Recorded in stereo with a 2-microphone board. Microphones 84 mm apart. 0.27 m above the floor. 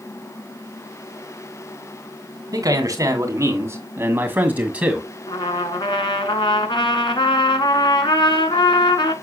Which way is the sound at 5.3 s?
75° left (ahead or behind).